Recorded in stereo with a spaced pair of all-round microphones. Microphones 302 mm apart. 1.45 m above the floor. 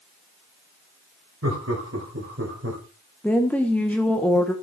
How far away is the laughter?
About 6.5 m.